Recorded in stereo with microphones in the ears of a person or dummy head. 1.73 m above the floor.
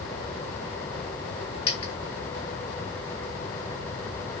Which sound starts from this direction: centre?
A dropped coin, at 1.7 s.